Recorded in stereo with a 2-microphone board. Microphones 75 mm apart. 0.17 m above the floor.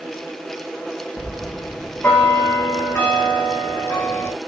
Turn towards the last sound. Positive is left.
turn(degrees=15)  # may be behind; listen again after turning